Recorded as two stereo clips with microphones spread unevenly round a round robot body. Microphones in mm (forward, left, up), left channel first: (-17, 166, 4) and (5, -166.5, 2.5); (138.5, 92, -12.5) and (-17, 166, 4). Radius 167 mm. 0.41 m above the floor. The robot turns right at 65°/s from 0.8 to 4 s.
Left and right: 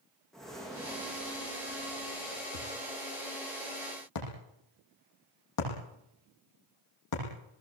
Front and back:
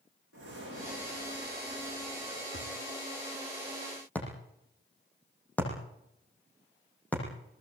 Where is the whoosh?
175° right, 6.5 m; by 2.4 s 70° right, 6.5 m.